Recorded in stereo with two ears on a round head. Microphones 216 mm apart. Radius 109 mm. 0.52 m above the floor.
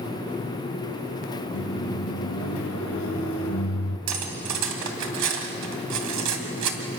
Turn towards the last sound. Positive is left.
turn(degrees=-75)  # may be behind; listen again after turning